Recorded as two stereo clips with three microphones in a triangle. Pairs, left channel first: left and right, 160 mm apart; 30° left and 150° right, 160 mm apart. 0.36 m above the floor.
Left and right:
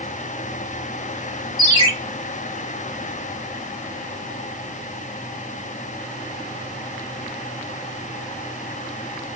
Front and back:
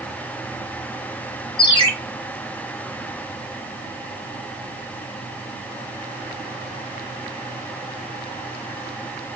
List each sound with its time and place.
1.6 s a ringtone: 35° right, 1.6 m